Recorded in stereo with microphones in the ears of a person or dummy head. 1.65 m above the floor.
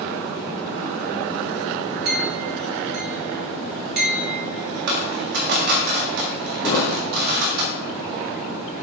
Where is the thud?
15° left (ahead or behind), 3 m.